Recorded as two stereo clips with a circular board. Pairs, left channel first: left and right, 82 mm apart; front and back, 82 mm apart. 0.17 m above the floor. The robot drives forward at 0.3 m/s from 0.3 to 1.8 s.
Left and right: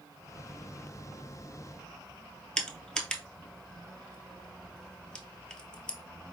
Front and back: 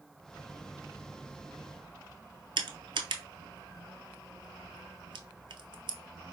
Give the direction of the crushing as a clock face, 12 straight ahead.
6 o'clock.